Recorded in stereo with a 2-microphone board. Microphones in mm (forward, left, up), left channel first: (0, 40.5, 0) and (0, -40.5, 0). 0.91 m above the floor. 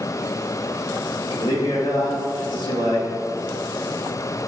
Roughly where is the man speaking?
Left.